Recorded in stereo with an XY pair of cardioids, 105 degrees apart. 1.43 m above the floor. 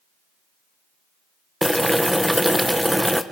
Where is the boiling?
5° right, 1.4 m.